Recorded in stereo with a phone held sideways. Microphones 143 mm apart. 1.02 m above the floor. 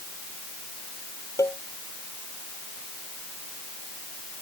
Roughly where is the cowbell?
Left.